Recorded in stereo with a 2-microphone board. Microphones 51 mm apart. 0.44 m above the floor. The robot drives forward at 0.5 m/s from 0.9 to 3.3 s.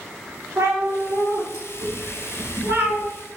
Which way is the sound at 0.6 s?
80° right.